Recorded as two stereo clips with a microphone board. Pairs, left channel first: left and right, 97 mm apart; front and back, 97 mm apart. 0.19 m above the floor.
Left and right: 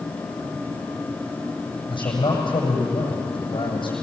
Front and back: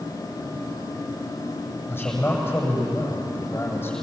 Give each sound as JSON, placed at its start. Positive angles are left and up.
{"t": 1.9, "sound": "a man speaking", "azimuth_deg": 65, "distance_m": 7.5}